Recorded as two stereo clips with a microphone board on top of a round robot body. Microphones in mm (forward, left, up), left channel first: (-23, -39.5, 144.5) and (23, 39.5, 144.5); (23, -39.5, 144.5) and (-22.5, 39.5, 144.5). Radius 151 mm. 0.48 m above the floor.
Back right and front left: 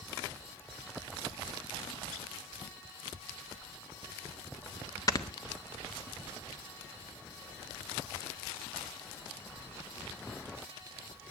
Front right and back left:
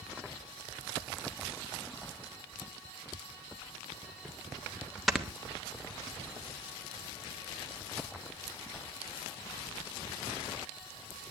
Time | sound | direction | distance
5.1 | snoring | 150° right | 1.8 m